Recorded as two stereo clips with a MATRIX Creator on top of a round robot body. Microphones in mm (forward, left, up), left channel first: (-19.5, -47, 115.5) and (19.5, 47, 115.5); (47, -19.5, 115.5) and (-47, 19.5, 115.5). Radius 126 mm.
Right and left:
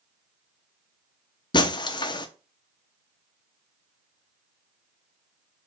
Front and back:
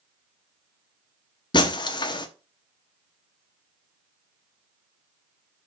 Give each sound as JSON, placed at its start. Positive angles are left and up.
{"t": 1.5, "sound": "breaking glass", "azimuth_deg": -65, "distance_m": 0.8}